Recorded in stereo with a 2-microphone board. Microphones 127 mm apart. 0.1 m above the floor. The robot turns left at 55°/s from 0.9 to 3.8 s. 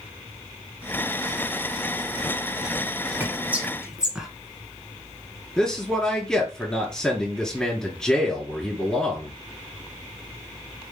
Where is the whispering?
15° right (ahead or behind), 1.5 m; by 4.3 s 5° right (ahead or behind), 1.5 m.